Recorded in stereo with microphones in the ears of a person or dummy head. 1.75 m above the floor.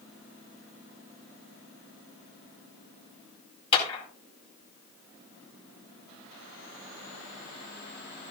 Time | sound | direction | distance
3.7 | a clap | 30° left (ahead or behind) | 5 m